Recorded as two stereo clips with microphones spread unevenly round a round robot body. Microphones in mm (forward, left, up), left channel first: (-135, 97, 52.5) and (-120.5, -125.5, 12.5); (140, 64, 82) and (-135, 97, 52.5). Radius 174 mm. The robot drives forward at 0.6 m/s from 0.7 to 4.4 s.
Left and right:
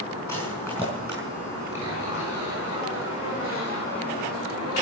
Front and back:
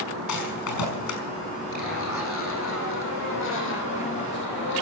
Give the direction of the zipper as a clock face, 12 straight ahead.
11 o'clock.